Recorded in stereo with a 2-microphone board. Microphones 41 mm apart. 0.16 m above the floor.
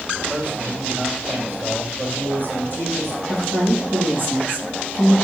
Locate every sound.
0.3 s a man speaking: 65° right (ahead or behind), 4.5 m
3.3 s a woman speaking: 65° right (ahead or behind), 4 m